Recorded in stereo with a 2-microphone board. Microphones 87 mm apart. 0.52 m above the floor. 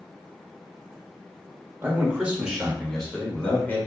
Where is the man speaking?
20° right (ahead or behind), 1.3 m; by 3.8 s 25° left (ahead or behind), 1.4 m.